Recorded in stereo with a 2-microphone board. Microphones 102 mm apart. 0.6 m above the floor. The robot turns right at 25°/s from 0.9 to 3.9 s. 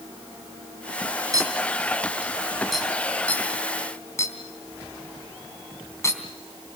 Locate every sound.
1.3 s a clink: 35° right (ahead or behind), 3.5 m; by 6.2 s 30° left (ahead or behind), 3.5 m